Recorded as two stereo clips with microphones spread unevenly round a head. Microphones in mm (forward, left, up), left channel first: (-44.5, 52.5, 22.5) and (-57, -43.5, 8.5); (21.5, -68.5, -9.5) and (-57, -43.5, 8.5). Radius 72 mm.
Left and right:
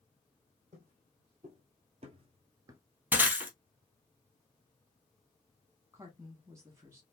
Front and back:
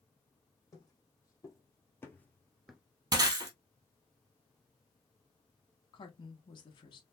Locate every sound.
0.7 s footsteps: 65° right, 2.5 m; by 2.8 s 145° right, 1.0 m
3.1 s breaking glass: 170° right, 2.5 m
5.9 s a woman speaking: 30° right, 1.5 m